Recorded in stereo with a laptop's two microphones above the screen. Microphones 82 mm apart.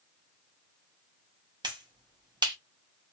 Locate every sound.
1.6 s a finger snap: 60° right (ahead or behind), 0.7 m